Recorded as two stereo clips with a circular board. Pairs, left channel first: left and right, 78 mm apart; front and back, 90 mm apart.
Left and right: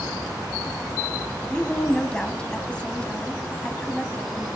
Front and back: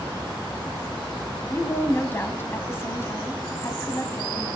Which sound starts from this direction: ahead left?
A woman speaking, at 1.5 s.